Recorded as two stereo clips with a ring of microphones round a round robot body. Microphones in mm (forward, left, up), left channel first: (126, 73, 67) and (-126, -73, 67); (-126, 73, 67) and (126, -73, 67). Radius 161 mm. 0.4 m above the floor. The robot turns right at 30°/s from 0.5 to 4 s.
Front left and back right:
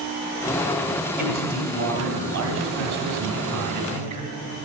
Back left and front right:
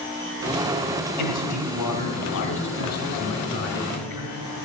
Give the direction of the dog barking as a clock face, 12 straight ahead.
I don't hear a dog barking.